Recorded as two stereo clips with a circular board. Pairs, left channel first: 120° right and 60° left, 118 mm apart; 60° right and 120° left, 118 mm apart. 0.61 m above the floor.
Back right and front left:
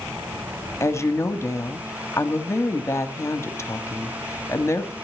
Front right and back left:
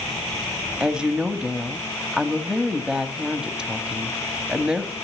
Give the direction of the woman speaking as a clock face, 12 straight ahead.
5 o'clock.